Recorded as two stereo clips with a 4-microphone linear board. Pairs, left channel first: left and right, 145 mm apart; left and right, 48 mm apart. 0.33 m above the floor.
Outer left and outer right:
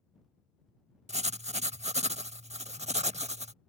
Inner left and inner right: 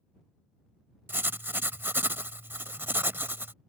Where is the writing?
50° right (ahead or behind).